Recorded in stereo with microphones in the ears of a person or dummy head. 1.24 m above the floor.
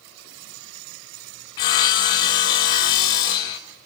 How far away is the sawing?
About 0.6 m.